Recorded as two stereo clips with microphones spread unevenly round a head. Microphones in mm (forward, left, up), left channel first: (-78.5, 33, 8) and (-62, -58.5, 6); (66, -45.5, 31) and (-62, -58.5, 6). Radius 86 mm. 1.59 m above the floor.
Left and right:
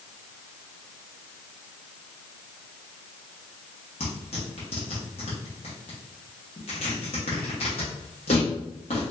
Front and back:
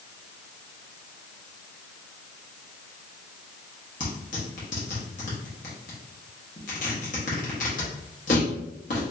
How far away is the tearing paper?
About 1.2 m.